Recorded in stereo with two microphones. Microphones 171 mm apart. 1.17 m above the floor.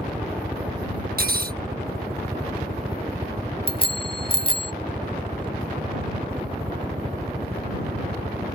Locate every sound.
0.0 s a helicopter: 5° right (ahead or behind); by 8.6 s 40° right (ahead or behind)
1.2 s cutlery clinking: 60° right (ahead or behind)
3.7 s a bicycle bell: 30° left (ahead or behind)